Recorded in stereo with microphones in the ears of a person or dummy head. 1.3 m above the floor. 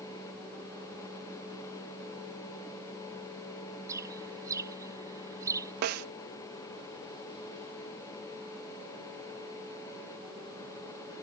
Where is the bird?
15° right (ahead or behind).